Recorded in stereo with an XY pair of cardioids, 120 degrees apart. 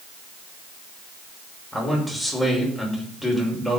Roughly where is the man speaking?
Ahead.